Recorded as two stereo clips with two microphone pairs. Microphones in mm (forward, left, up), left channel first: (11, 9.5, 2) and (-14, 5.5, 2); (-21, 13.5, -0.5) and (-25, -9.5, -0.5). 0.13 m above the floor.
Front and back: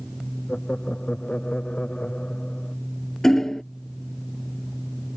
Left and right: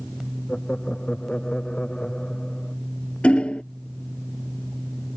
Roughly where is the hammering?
Left.